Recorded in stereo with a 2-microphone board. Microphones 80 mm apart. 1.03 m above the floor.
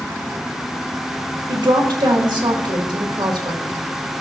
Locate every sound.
1.5 s a woman speaking: 80° right, 1.8 m